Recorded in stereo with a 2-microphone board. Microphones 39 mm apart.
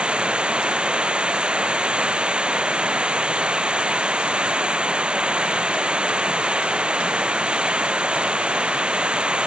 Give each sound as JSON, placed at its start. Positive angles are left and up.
{"t": 0.0, "sound": "running water", "side_deg": -25}